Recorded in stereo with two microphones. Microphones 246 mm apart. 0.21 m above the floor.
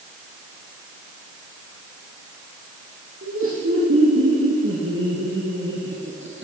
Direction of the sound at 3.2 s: 60° right (ahead or behind).